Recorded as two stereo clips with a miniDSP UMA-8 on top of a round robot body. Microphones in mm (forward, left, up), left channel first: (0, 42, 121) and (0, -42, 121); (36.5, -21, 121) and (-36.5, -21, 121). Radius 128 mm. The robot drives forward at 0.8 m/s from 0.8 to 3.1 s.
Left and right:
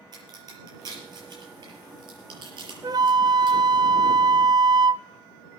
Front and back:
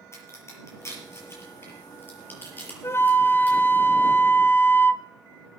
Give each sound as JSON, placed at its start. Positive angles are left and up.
{"t": 0.1, "sound": "a crack", "azimuth_deg": -50, "distance_m": 6.0}
{"t": 2.8, "sound": "a flute", "azimuth_deg": -50, "distance_m": 1.0}